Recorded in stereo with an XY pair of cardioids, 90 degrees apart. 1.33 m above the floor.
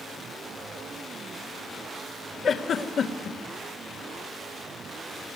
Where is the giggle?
60° left, 2.5 m.